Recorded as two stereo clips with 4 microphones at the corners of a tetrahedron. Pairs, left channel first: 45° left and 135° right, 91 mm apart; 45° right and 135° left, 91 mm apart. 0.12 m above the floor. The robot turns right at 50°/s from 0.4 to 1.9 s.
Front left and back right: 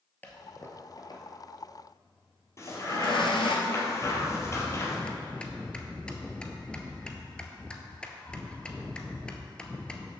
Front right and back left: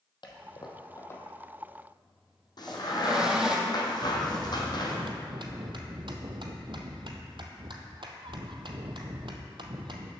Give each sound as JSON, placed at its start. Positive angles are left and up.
{"t": 0.2, "sound": "a toilet flushing", "azimuth_deg": -25, "distance_m": 1.2}
{"t": 2.6, "sound": "a crack", "azimuth_deg": -10, "distance_m": 1.7}
{"t": 4.0, "sound": "a bell", "azimuth_deg": 125, "distance_m": 0.8}